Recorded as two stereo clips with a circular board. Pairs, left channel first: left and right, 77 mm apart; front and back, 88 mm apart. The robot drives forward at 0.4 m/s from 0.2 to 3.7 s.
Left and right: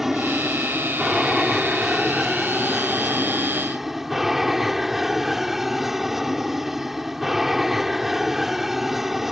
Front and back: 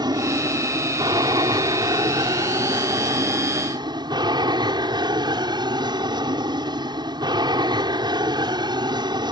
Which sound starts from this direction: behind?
An aircraft, at 0.0 s.